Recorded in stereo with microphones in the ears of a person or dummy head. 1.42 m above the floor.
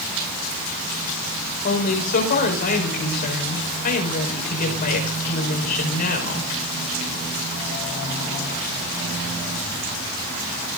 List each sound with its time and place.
1.6 s a woman speaking: 45° left (ahead or behind), 6 m